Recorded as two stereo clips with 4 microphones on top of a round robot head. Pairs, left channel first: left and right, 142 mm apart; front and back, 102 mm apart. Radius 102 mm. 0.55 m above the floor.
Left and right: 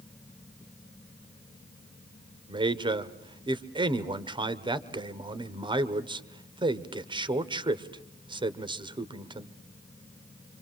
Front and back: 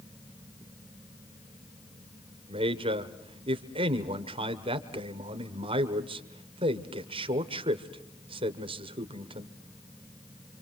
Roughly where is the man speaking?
Behind right.